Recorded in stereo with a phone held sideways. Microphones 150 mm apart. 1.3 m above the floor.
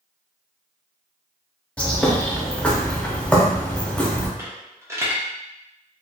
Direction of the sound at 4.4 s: 20° right (ahead or behind).